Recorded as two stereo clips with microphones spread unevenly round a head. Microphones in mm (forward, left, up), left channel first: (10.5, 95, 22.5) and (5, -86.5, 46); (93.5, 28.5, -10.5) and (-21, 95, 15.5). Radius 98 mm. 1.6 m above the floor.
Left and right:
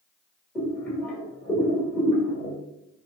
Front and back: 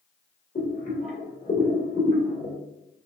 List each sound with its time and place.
0.6 s boiling: 5° left, 1.7 m